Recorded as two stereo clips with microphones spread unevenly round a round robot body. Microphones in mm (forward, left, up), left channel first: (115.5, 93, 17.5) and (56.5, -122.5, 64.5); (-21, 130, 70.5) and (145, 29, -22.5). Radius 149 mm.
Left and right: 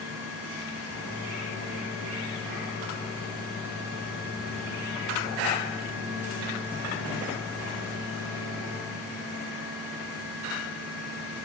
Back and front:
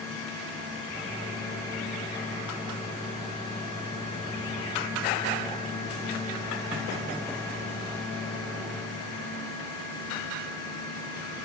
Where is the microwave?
45° left, 2.5 m.